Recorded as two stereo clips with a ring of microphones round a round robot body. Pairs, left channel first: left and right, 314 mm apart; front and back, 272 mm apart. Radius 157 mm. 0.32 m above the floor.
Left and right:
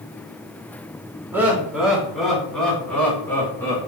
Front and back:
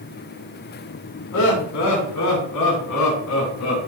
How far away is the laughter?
About 3.5 m.